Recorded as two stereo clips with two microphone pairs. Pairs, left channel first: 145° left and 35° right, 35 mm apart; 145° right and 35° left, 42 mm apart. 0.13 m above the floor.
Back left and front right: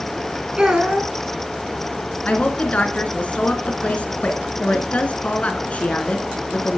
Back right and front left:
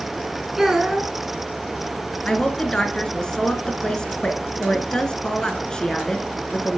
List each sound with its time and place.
0.6 s a child speaking: 30° right, 0.9 m
2.2 s a woman speaking: 155° left, 1.3 m